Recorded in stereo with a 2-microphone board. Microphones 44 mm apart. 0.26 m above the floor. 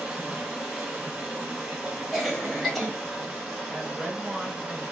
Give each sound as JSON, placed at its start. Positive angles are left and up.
{"t": 0.0, "sound": "running water", "side_deg": -10, "distance_m": 1.5}
{"t": 2.1, "sound": "a cough", "side_deg": 0, "distance_m": 1.1}
{"t": 3.7, "sound": "a woman speaking", "side_deg": -10, "distance_m": 1.9}